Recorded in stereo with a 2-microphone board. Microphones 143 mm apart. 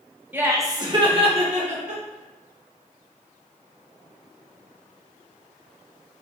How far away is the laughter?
About 0.9 m.